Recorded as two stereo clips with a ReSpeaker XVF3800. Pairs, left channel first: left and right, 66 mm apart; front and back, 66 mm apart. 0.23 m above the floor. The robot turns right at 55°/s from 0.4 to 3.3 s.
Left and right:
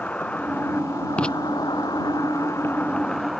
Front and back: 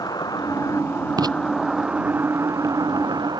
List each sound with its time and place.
0.0 s an insect: 20° left; by 3.4 s straight behind
1.2 s writing: 165° left; by 1.4 s 175° left